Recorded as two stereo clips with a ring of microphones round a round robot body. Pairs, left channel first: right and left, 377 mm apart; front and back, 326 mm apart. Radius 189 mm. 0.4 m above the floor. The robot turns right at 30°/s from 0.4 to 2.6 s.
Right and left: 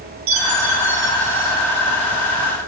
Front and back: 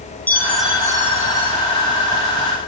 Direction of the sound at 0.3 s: 85° left.